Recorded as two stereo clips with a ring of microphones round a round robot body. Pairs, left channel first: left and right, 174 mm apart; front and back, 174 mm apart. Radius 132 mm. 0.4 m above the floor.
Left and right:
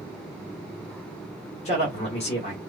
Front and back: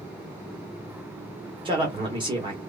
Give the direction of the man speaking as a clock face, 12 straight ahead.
8 o'clock.